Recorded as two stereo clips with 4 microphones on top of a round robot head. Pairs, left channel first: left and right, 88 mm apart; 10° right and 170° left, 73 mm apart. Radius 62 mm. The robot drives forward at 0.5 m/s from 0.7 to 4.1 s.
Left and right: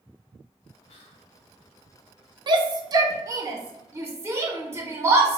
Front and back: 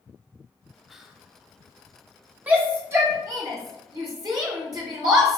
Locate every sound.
0.9 s whispering: 80° left, 1.0 m; by 1.3 s 95° left, 1.0 m
2.5 s a shout: 120° right, 0.9 m; by 5.4 s 150° right, 1.4 m